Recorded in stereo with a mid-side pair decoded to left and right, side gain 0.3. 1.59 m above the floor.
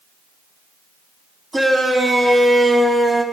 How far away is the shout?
About 4.5 m.